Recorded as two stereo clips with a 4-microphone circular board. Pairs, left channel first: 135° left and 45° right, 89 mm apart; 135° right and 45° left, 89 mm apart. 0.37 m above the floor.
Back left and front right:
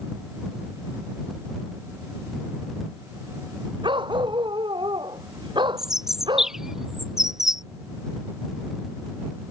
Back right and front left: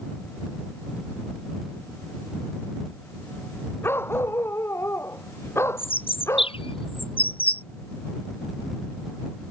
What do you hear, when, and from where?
3.8 s a dog barking: 70° right; by 6.6 s 75° right
5.8 s a bird: 130° right